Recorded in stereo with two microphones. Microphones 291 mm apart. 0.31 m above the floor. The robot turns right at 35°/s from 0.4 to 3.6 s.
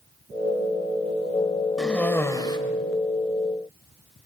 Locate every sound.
1.8 s a cough: centre (ahead or behind), 1.2 m; by 2.6 s 15° left (ahead or behind), 1.2 m